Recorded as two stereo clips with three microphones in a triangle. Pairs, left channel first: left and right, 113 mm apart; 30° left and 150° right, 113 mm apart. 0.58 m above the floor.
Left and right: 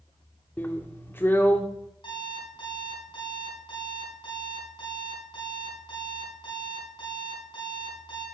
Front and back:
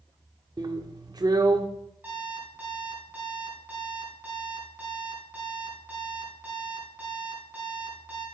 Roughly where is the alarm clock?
Behind left.